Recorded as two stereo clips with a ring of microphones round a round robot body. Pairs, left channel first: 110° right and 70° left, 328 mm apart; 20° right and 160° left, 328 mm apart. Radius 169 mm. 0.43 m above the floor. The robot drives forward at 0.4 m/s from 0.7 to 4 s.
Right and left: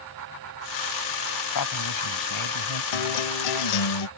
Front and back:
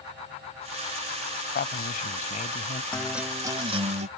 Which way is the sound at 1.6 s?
85° right.